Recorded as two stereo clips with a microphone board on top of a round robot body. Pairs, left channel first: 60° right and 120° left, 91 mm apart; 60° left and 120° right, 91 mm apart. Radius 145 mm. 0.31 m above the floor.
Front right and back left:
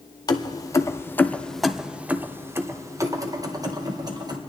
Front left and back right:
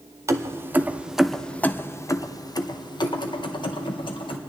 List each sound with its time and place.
0.3 s keys jangling: 75° right, 1.0 m; by 4.4 s 80° left, 1.8 m